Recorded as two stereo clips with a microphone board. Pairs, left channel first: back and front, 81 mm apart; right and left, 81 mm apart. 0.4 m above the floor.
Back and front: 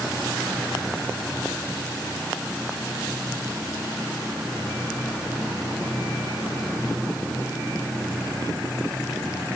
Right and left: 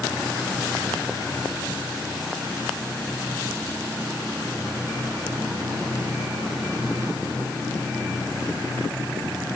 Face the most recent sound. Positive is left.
No sound to turn to.